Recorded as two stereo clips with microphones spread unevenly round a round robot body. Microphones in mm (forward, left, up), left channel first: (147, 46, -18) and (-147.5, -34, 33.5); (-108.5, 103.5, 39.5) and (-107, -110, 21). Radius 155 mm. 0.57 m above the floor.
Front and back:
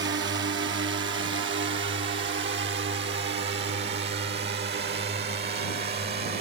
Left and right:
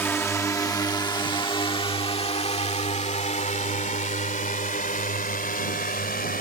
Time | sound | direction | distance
0.0 | a drone | 170° left | ?